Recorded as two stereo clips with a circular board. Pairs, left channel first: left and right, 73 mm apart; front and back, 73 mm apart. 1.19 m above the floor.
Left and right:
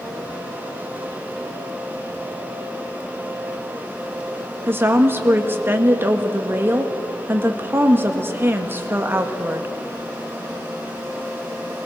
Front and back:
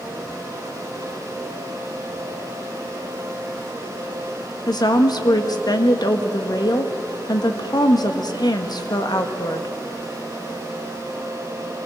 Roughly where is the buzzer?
I don't hear a buzzer.